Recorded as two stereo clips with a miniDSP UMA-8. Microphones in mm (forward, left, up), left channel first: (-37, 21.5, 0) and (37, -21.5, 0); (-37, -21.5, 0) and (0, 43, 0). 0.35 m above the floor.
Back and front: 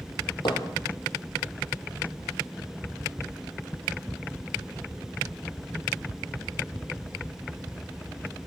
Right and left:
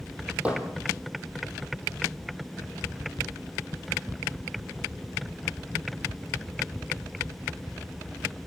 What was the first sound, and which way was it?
Hammering, 130° left.